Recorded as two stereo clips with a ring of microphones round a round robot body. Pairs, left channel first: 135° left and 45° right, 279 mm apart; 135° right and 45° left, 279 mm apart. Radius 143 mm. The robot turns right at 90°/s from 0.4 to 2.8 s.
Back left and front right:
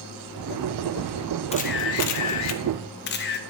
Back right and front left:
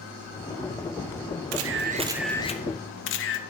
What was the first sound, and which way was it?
A camera shutter, 70° left.